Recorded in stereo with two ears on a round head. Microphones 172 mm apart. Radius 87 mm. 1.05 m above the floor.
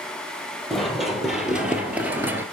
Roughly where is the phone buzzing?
No phone buzzing in this recording.